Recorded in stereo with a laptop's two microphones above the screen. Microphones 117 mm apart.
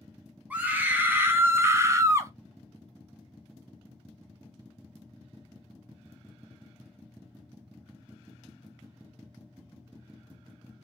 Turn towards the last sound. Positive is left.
turn(degrees=-25)  # may be behind; listen again after turning